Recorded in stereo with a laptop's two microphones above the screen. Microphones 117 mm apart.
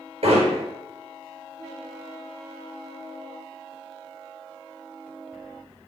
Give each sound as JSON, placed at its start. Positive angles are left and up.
{"t": 0.2, "sound": "hammering", "side_deg": -60, "distance_m": 5.5}